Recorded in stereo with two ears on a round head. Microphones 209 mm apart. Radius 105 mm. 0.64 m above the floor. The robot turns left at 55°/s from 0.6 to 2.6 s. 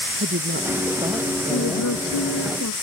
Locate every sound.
0.2 s a woman speaking: 135° right; by 1.9 s 150° left
1.5 s a woman speaking: 120° left; by 2.7 s 60° left